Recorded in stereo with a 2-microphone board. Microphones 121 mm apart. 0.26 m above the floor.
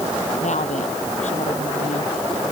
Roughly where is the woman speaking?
Left.